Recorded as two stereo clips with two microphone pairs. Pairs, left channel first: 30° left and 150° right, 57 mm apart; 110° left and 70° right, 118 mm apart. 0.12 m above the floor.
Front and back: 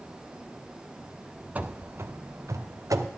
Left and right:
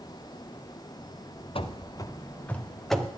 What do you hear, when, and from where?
1.6 s running footsteps: 150° left, 0.8 m; by 3.1 s 160° right, 1.2 m